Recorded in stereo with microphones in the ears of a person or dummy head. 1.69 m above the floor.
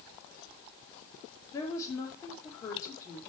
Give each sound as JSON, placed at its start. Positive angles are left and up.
{"t": 1.5, "sound": "a woman speaking", "side_deg": 15, "distance_m": 5.0}